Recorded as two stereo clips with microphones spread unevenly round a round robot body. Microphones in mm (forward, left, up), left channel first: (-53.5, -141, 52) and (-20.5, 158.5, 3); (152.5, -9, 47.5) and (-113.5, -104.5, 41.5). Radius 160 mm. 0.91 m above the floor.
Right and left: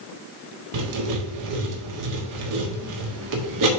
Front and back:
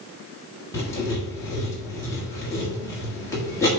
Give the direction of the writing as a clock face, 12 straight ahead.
9 o'clock.